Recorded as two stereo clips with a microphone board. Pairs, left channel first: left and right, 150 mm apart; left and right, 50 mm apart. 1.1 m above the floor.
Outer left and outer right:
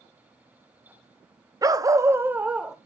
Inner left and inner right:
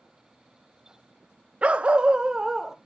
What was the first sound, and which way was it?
A dog barking, 25° right (ahead or behind).